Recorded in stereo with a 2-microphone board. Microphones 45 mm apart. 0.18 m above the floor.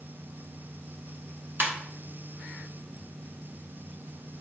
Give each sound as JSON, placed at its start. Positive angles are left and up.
{"t": 1.6, "sound": "a ringtone", "side_deg": -50, "distance_m": 1.2}